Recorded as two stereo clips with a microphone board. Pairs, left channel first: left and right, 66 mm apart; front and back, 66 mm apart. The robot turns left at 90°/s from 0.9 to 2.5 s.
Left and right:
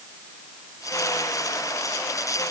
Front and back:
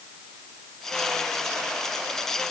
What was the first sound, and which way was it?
Only background noise.